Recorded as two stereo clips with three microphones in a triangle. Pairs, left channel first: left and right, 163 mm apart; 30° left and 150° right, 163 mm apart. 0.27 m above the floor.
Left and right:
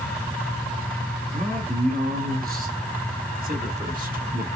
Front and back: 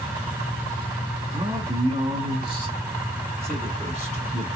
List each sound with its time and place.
1.3 s a man speaking: 90° right, 2.5 m; by 4.5 s 105° right, 4.5 m